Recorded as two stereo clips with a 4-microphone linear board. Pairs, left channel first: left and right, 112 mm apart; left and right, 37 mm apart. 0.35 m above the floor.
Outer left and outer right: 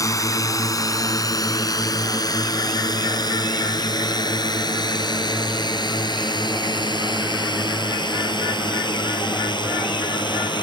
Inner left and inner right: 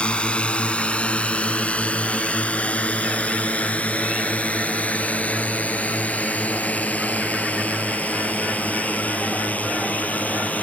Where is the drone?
30° left (ahead or behind); by 10.6 s 40° left (ahead or behind).